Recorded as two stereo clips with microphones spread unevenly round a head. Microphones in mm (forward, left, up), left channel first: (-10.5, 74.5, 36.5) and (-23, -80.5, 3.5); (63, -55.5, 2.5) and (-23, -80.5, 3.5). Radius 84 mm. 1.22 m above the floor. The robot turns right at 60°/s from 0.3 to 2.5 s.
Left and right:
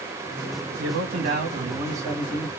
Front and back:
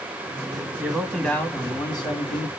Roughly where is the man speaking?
Right.